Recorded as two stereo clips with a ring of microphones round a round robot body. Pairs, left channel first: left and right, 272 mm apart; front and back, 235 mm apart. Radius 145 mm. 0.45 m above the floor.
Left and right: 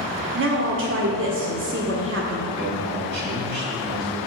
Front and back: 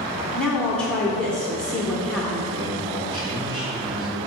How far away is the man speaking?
About 2.5 m.